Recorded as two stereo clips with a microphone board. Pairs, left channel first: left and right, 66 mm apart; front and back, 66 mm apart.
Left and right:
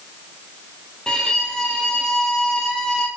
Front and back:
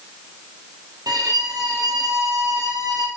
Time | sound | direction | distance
1.1 | a violin | 170° left | 1.3 m